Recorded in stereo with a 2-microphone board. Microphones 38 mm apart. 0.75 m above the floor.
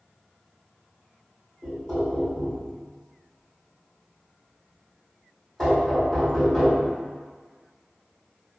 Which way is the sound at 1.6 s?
20° left (ahead or behind).